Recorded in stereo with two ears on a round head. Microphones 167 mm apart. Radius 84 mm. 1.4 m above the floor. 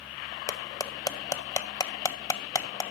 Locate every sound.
0.5 s cutlery clinking: 20° left (ahead or behind), 0.6 m